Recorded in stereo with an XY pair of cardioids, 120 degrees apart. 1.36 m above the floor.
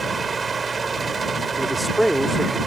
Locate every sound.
0.0 s a fan: 30° right
1.6 s a man speaking: 5° right